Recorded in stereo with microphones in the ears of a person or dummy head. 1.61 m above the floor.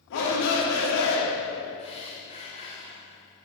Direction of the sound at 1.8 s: 35° left (ahead or behind).